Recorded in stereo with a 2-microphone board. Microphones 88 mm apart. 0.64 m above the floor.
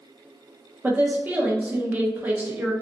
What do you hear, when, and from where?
0.8 s a woman speaking: 20° right (ahead or behind), 0.5 m